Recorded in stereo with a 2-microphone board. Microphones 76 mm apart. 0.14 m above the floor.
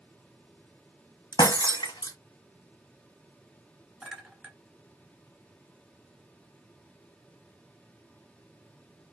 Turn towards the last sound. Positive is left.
turn(degrees=-10)  # may be behind; listen again after turning